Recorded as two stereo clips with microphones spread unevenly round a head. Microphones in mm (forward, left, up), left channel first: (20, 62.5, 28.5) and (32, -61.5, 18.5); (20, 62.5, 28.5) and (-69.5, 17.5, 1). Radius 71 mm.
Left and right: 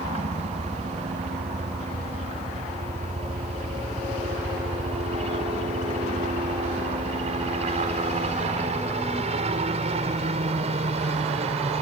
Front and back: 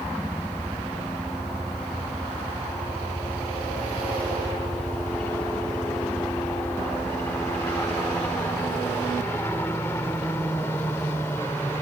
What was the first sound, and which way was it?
A helicopter, 60° right.